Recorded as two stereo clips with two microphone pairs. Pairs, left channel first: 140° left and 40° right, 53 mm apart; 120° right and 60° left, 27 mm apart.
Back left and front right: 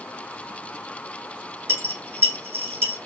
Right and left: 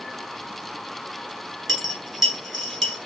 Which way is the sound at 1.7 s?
35° right.